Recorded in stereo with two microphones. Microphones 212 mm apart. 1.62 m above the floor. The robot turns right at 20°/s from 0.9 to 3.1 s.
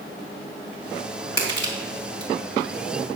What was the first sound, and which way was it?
Crushing, 55° left (ahead or behind).